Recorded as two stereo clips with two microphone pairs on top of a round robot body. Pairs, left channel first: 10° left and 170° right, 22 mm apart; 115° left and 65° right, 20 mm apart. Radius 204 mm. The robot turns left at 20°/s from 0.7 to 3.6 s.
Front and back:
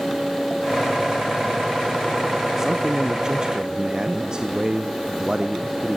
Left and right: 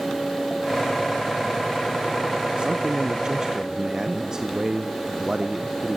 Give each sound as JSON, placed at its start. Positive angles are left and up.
{"t": 2.6, "sound": "a man speaking", "azimuth_deg": -105, "distance_m": 1.3}